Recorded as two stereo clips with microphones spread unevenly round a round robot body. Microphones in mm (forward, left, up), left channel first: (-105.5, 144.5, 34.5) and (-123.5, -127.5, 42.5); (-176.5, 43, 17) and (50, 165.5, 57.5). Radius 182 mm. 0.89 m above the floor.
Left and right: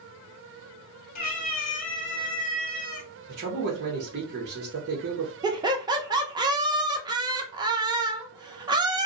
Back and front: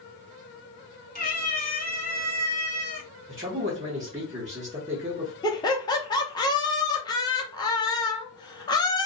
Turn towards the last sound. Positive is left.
turn(degrees=-150)